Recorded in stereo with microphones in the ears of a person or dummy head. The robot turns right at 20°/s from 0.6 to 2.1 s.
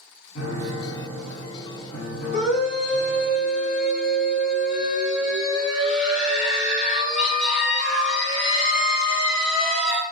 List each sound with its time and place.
0.3 s a piano: 85° left, 1.3 m; by 3.3 s 115° left, 1.3 m
2.3 s a scream: 45° left (ahead or behind), 1.7 m